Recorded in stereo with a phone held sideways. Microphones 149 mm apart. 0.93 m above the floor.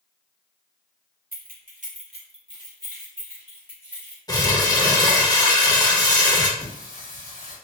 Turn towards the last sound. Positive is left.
turn(degrees=60)  # may be behind; listen again after turning